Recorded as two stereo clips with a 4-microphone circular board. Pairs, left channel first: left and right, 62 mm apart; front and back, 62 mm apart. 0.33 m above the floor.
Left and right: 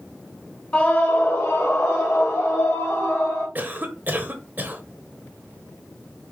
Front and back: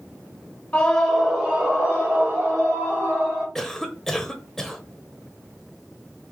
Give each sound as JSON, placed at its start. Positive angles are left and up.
{"t": 0.7, "sound": "a scream", "azimuth_deg": 35, "distance_m": 0.9}
{"t": 3.5, "sound": "a cough", "azimuth_deg": -75, "distance_m": 1.0}